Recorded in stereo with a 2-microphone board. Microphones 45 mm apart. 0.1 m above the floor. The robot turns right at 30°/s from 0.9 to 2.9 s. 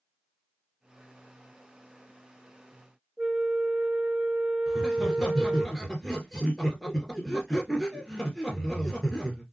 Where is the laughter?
Centre (ahead or behind), 1.8 m.